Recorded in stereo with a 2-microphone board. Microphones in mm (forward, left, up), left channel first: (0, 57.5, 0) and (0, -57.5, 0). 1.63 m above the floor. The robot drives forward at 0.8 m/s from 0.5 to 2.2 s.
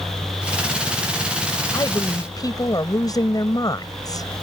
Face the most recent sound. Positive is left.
turn(degrees=30)  # may be behind; listen again after turning